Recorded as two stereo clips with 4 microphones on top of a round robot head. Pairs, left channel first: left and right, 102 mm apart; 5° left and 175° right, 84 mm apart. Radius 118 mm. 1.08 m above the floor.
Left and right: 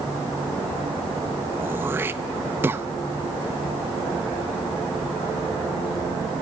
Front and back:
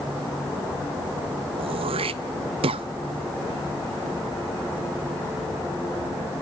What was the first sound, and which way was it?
Throat clearing, 165° right.